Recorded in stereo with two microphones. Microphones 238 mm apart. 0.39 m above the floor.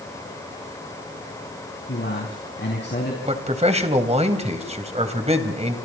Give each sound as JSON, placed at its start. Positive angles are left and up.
{"t": 1.9, "sound": "a man speaking", "side_deg": 45, "distance_m": 4.0}
{"t": 3.2, "sound": "a man speaking", "side_deg": -25, "distance_m": 2.5}